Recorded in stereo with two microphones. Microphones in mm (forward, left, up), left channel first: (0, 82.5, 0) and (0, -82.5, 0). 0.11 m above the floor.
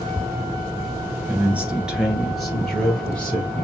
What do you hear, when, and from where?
1.3 s a man speaking: 10° right (ahead or behind), 1.4 m; by 3.6 s 5° left (ahead or behind), 2.5 m